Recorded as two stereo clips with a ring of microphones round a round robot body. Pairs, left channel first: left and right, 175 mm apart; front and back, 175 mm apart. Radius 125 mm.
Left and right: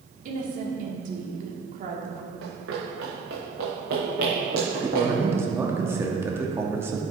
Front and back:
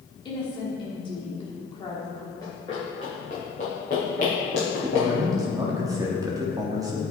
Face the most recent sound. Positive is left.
turn(degrees=-145)